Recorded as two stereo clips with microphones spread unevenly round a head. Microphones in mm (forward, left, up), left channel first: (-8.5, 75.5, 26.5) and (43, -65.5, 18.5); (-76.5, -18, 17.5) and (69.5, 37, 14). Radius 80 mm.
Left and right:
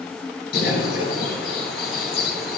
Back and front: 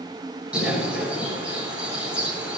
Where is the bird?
105° left, 7.5 m.